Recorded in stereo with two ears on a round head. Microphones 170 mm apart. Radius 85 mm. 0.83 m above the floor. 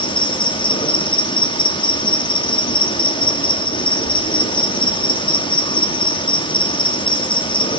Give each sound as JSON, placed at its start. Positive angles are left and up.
{"t": 0.0, "sound": "an insect", "side_deg": 25, "distance_m": 1.1}